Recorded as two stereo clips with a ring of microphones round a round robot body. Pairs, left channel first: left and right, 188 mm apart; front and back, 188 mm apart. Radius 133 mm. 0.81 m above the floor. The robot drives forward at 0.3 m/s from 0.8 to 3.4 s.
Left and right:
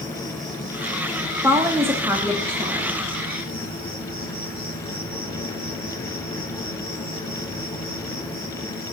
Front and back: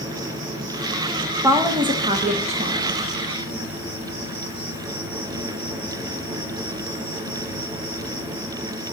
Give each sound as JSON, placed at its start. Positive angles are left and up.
{"t": 0.0, "sound": "an insect", "azimuth_deg": 180, "distance_m": 1.9}
{"t": 1.4, "sound": "a woman speaking", "azimuth_deg": -140, "distance_m": 0.7}